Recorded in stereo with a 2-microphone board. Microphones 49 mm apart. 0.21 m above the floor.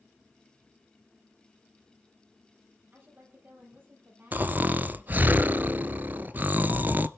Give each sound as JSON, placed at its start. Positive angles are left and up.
{"t": 2.9, "sound": "a woman speaking", "side_deg": -40, "distance_m": 5.5}
{"t": 4.3, "sound": "snoring", "side_deg": -40, "distance_m": 0.5}